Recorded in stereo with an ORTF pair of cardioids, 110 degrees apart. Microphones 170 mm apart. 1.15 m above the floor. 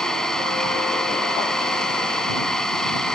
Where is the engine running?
5° left.